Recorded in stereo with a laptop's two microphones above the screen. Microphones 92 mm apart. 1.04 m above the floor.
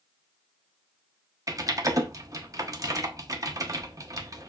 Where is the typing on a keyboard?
35° right (ahead or behind), 0.5 m.